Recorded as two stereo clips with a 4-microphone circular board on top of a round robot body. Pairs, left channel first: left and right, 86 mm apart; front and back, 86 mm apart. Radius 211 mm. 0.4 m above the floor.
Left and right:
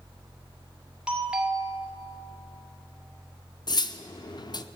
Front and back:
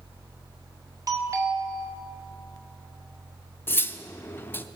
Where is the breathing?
No breathing in this recording.